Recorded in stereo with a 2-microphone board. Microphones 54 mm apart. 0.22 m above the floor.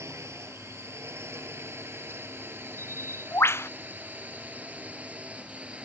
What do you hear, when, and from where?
0.0 s a drone: 55° right (ahead or behind); by 5.9 s 20° right (ahead or behind)
2.8 s a bird: 50° left (ahead or behind)